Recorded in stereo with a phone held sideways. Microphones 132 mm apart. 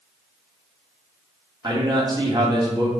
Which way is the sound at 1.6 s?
35° right (ahead or behind).